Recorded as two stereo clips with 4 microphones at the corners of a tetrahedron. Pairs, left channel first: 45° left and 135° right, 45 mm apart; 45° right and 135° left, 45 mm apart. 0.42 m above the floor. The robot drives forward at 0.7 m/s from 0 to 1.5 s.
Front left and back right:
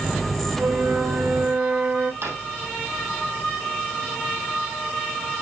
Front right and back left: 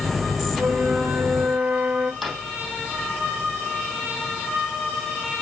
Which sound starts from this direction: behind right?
A drawer, at 2.2 s.